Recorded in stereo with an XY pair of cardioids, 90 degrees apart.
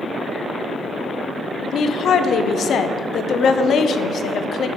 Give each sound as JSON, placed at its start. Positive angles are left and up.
{"t": 1.6, "sound": "a woman speaking", "azimuth_deg": 65, "distance_m": 0.8}